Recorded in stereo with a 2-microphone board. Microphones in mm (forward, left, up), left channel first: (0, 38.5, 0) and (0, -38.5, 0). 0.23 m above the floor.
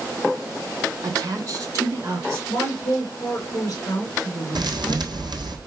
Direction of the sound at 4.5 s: 65° right (ahead or behind).